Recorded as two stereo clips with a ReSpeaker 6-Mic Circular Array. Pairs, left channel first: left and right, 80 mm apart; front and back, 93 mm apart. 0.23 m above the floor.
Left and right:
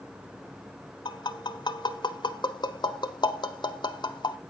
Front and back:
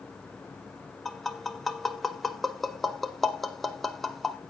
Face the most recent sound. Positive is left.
turn(degrees=85)